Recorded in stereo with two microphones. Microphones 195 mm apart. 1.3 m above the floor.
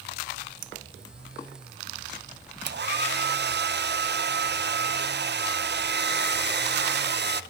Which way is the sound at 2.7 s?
60° right (ahead or behind).